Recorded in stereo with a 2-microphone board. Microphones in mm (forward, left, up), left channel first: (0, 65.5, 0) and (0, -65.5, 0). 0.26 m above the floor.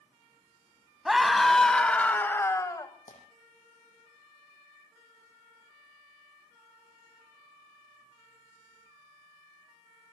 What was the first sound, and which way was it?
A scream, 5° right (ahead or behind).